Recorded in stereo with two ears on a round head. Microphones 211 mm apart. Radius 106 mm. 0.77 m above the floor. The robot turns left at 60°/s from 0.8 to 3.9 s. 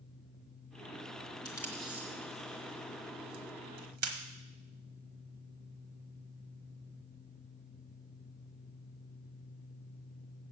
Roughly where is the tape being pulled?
Centre.